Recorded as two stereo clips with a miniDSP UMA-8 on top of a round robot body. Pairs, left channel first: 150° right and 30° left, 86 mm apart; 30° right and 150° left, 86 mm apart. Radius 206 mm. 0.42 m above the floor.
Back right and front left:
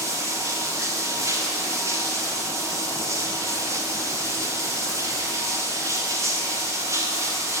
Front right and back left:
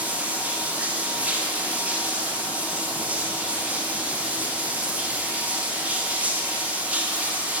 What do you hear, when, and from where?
0.0 s running water: 80° left, 1.4 m